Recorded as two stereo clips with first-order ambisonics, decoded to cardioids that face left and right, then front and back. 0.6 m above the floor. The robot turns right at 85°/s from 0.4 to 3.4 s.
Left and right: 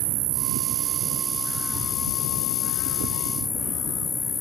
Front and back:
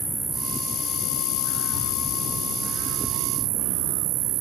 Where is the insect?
95° right; by 4.4 s 160° left.